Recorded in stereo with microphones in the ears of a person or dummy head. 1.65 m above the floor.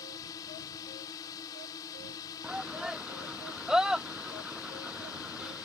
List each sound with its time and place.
0.0 s a drone: 20° left (ahead or behind)
2.4 s a shout: 5° right (ahead or behind)